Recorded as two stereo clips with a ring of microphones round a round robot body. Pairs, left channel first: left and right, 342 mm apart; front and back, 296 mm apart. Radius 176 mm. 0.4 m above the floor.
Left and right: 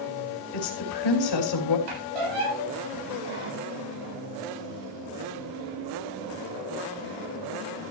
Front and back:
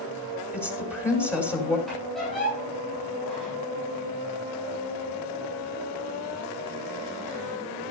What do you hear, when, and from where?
0.5 s a woman speaking: 80° left, 3 m
1.9 s a squeak: 90° right, 7.5 m